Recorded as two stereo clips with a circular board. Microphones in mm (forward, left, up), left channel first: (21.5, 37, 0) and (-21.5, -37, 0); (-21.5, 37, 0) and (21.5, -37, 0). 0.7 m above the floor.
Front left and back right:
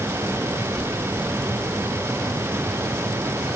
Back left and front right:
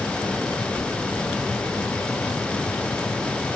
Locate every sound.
0.6 s keys jangling: 160° right, 8 m; by 3.5 s straight behind, 8 m